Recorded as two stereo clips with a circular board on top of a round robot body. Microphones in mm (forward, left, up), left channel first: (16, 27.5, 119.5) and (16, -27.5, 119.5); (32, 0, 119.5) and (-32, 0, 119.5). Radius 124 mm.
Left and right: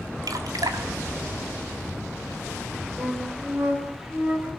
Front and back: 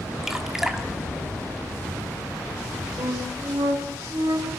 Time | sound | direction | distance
0.2 | dripping | 95° right | 2.0 m
3.0 | a flute | 150° right | 7.5 m